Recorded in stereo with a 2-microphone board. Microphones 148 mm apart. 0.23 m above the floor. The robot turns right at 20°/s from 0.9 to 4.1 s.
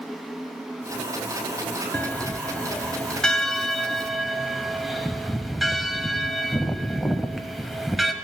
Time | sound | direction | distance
1.9 | a bell | 10° left (ahead or behind) | 0.7 m